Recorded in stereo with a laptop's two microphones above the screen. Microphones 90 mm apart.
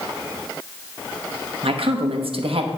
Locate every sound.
1.6 s a woman speaking: 80° right, 1.0 m